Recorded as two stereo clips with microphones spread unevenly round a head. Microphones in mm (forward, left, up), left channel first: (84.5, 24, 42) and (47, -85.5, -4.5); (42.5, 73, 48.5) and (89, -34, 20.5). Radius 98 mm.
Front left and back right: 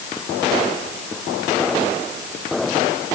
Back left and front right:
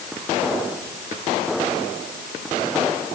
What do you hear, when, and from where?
Only background noise.